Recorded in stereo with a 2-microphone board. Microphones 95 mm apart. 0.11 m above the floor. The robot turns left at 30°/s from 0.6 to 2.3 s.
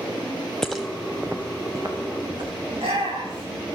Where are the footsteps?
5° left (ahead or behind), 0.7 m; by 2.5 s 55° right (ahead or behind), 4 m.